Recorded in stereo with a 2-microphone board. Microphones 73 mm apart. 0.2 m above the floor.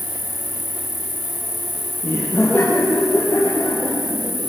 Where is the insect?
30° right (ahead or behind), 1.6 m.